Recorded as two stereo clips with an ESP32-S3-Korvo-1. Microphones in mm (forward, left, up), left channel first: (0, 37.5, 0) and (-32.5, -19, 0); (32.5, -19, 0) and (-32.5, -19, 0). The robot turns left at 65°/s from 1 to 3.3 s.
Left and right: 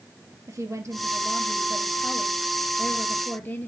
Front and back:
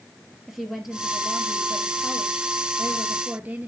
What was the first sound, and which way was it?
A woman speaking, 95° right.